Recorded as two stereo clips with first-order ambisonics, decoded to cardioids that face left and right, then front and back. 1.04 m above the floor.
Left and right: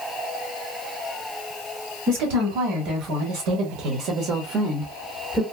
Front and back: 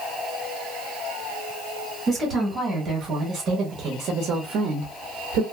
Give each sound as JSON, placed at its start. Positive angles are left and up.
{"t": 2.1, "sound": "a woman speaking", "azimuth_deg": -100, "distance_m": 1.7}